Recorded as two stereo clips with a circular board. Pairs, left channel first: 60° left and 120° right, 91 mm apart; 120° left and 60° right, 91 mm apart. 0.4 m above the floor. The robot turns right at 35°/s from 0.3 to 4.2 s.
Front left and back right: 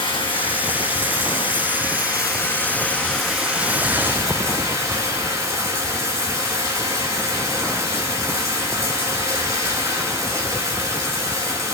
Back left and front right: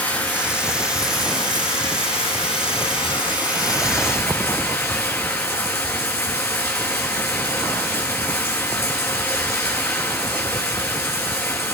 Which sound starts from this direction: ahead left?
Running water, at 0.0 s.